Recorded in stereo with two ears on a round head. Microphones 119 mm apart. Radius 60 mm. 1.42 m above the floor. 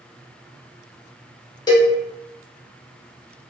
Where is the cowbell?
30° left (ahead or behind), 0.7 m.